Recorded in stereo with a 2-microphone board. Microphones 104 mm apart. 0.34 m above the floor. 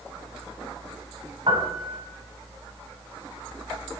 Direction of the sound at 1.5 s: 55° right (ahead or behind).